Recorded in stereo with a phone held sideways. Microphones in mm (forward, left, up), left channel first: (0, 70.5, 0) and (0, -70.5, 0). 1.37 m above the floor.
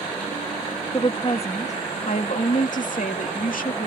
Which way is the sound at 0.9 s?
40° left (ahead or behind).